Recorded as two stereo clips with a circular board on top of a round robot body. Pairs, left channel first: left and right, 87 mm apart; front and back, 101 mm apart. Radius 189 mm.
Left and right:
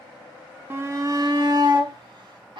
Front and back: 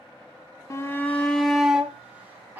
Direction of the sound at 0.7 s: 40° right.